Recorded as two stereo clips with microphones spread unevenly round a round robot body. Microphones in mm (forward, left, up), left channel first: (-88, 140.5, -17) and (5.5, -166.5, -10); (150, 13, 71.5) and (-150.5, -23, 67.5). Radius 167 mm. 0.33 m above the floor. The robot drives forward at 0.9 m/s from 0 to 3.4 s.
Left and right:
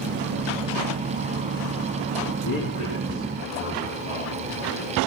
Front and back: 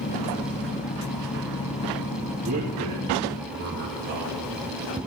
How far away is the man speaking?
About 5 m.